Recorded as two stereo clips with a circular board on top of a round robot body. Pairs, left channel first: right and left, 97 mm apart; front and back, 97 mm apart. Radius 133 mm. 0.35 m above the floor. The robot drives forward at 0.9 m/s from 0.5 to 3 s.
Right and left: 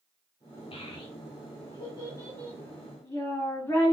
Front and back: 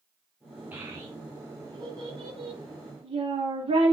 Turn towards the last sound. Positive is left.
turn(degrees=-150)